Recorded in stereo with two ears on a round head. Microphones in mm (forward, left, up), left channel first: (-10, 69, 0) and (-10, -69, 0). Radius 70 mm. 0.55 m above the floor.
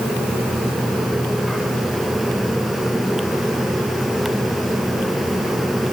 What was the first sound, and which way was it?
Only background noise.